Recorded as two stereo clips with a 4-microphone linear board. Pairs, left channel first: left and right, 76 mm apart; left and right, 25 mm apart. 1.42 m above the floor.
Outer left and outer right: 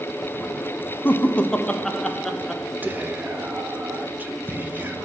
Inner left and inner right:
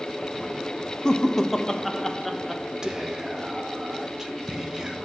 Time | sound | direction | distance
1.1 | laughter | 30° left (ahead or behind) | 0.6 m
2.8 | whispering | 25° right (ahead or behind) | 1.0 m